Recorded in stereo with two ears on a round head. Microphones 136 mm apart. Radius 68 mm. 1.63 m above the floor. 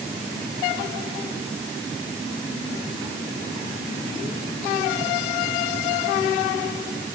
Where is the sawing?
No sawing in this recording.